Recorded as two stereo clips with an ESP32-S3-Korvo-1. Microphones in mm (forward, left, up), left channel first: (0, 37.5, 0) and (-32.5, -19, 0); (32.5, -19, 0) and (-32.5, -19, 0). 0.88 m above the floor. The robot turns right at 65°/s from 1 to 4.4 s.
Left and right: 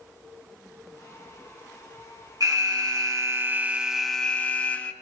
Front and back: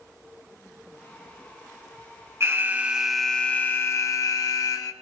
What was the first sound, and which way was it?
An alarm, 135° right.